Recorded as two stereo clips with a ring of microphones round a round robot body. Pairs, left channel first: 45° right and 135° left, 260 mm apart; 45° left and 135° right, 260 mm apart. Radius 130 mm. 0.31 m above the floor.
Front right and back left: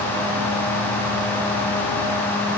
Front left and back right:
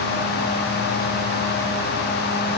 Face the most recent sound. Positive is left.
No sound to turn to.